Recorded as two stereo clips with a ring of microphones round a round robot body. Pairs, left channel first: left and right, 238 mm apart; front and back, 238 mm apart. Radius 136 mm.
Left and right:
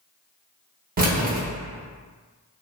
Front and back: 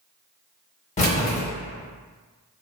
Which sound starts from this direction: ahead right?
Keys jangling, at 1.0 s.